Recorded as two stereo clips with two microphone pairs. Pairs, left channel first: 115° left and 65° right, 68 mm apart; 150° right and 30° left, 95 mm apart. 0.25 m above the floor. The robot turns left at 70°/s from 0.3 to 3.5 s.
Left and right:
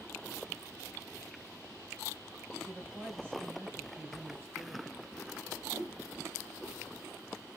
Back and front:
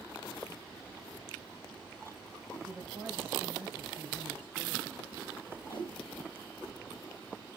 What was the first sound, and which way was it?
A man speaking, 20° left.